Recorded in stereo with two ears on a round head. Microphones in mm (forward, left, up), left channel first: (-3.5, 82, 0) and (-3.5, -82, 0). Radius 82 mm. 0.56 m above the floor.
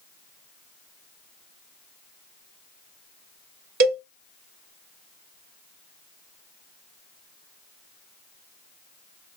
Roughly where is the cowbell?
Right.